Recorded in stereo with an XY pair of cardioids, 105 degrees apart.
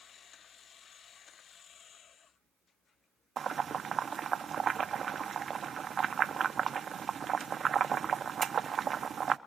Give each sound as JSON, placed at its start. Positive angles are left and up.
{"t": 3.4, "sound": "boiling", "azimuth_deg": -45, "distance_m": 1.0}